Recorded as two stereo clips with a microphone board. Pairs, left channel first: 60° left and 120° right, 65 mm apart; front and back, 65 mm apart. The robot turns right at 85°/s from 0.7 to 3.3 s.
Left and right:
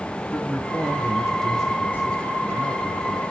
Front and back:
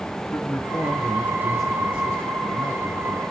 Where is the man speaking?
10° left, 1.7 m; by 3.2 s 135° right, 1.7 m.